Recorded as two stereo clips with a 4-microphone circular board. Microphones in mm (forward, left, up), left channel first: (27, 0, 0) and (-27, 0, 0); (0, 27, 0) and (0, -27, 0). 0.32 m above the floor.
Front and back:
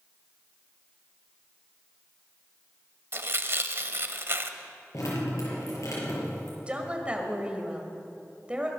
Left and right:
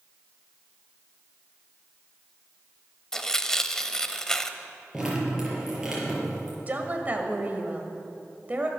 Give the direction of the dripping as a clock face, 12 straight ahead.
12 o'clock.